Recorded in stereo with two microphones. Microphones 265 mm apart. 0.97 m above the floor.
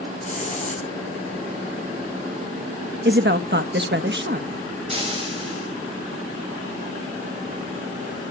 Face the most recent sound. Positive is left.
turn(degrees=-25)  # may be behind; listen again after turning